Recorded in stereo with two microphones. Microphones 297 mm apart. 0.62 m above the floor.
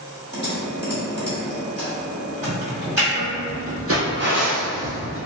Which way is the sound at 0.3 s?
35° right (ahead or behind).